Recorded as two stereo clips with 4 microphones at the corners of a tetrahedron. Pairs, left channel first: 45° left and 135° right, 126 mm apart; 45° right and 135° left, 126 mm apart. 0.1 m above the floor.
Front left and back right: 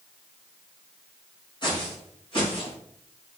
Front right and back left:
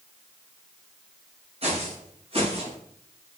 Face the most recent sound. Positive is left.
turn(degrees=95)